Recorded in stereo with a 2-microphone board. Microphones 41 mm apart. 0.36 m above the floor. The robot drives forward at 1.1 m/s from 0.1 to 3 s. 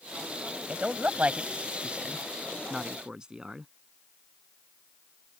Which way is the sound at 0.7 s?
40° right (ahead or behind).